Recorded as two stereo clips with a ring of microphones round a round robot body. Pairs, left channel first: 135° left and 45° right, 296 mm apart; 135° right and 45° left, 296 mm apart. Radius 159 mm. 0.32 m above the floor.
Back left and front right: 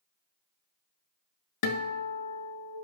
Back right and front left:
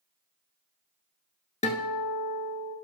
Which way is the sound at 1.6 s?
155° left.